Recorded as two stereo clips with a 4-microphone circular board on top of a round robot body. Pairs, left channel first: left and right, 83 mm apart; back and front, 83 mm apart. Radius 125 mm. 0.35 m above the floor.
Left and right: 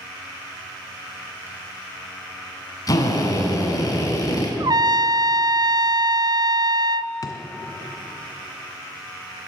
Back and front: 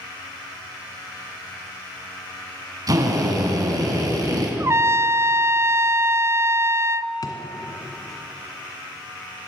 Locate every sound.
2.9 s a drill: 45° left, 4.5 m
4.6 s a trumpet: 55° right, 0.6 m
7.2 s a drawer: 135° left, 2.5 m